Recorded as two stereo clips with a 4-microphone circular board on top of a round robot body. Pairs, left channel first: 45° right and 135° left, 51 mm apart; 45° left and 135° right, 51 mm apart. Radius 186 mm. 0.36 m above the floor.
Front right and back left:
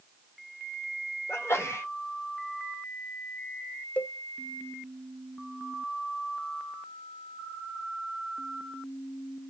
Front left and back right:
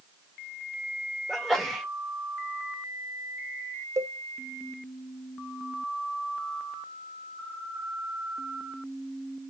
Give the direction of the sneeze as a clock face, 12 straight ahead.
1 o'clock.